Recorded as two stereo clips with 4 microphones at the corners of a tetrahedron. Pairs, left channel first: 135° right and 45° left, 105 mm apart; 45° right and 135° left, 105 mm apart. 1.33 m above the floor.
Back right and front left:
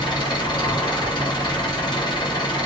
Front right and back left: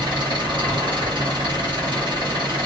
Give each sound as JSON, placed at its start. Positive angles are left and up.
{"t": 0.0, "sound": "an engine running", "azimuth_deg": 175, "distance_m": 1.1}